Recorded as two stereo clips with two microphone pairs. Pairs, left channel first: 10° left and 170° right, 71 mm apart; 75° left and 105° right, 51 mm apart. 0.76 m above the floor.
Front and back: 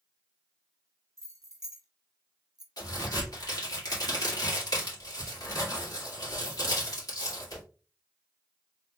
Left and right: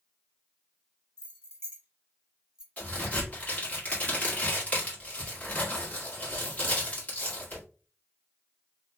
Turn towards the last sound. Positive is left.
turn(degrees=15)